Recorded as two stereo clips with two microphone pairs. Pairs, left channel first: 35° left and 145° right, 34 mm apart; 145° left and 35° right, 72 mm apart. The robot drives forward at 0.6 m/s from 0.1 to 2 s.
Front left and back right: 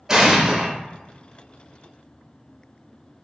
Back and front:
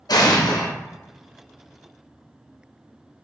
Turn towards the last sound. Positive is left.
turn(degrees=170)